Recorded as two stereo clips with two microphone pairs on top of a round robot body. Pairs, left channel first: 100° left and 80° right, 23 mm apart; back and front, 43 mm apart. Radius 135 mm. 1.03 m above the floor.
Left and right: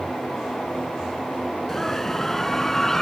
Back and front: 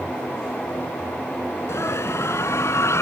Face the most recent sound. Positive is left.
turn(degrees=180)